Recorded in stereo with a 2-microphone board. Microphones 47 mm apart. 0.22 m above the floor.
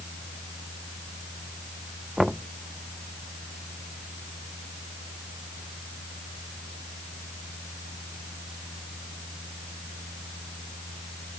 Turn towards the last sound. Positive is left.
turn(degrees=-5)  # may be behind; listen again after turning